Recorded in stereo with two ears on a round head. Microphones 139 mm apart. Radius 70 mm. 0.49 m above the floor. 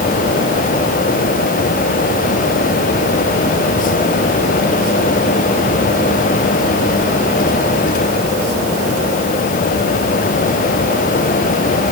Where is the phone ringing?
No phone ringing in this recording.